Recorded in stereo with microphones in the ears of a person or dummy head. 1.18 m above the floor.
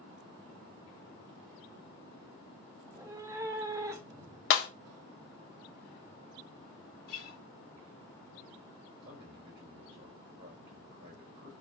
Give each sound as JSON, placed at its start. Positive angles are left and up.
{"t": 2.8, "sound": "a cat meowing", "side_deg": -20, "distance_m": 0.5}
{"t": 4.5, "sound": "breaking glass", "side_deg": 65, "distance_m": 0.6}
{"t": 7.1, "sound": "a guitar", "side_deg": 60, "distance_m": 1.4}
{"t": 9.0, "sound": "a man speaking", "side_deg": -55, "distance_m": 3.0}